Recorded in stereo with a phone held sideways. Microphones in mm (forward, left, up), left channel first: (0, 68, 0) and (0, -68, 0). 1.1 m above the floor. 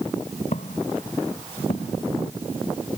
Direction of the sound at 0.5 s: 55° left (ahead or behind).